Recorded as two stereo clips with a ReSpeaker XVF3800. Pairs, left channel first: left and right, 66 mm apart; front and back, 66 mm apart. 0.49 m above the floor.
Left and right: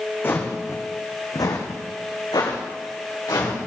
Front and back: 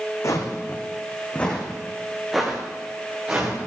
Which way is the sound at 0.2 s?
35° left.